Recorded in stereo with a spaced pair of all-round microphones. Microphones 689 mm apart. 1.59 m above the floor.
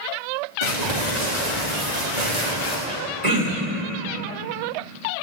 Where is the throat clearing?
65° right (ahead or behind), 3 m.